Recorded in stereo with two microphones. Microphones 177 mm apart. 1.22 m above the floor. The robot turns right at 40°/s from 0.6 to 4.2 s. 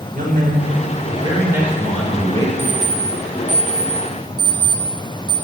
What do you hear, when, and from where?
0.1 s a man speaking: 50° right, 4.5 m; by 2.5 s 25° left, 4.5 m
2.6 s an alarm clock: 45° left (ahead or behind), 4.5 m; by 5.4 s 20° right (ahead or behind), 4.5 m